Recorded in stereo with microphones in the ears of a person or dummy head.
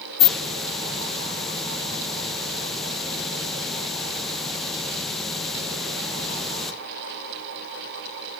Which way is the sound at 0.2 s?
Centre (ahead or behind).